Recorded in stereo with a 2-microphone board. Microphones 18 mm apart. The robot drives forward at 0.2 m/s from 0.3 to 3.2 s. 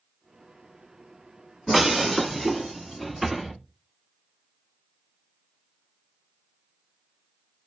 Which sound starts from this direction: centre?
Breaking glass, at 1.7 s.